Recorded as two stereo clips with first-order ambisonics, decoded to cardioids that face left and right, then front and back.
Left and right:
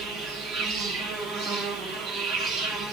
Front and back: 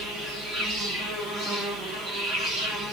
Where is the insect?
135° right, 3.5 m.